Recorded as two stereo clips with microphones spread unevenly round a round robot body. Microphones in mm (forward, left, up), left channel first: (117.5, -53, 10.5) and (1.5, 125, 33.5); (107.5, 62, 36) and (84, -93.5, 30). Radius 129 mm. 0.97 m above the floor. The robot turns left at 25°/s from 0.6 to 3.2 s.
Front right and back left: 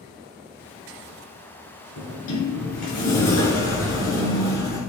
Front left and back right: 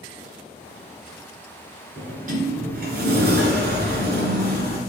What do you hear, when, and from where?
2.0 s a sliding door: 65° right, 2.5 m; by 4.8 s 95° right, 2.5 m